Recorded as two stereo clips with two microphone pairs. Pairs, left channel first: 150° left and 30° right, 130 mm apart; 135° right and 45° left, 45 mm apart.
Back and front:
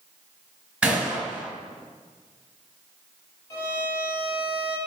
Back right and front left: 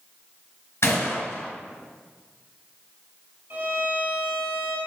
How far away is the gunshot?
About 3 m.